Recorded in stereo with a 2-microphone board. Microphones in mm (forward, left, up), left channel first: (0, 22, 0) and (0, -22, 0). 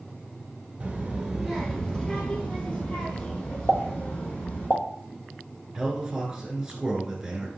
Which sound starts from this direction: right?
A child speaking, at 0.8 s.